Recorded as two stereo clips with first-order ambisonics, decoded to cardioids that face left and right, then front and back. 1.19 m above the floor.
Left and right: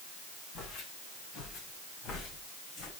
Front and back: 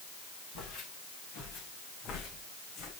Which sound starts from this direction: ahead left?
Footsteps, at 0.6 s.